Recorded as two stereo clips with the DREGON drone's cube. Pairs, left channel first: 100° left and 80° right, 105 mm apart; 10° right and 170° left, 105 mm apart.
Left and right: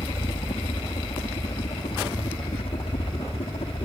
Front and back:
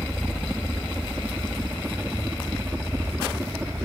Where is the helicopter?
85° left; by 3.9 s 105° left.